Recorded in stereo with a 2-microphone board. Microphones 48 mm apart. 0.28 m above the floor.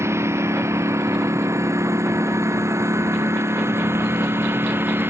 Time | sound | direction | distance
0.0 | a lawn mower | 70° right (ahead or behind) | ?